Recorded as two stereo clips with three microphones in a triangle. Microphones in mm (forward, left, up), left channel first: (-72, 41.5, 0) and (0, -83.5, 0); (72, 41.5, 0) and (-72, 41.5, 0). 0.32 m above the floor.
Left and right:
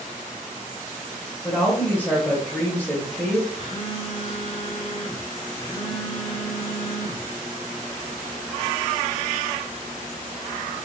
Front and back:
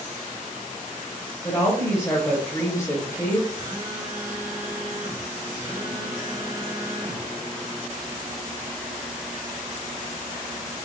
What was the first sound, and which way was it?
A woman speaking, 55° left.